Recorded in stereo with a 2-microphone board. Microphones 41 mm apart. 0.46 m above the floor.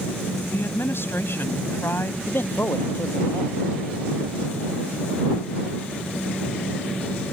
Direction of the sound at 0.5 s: 60° left (ahead or behind).